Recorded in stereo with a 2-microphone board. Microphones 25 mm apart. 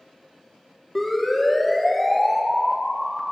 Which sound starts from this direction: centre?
A siren, at 0.9 s.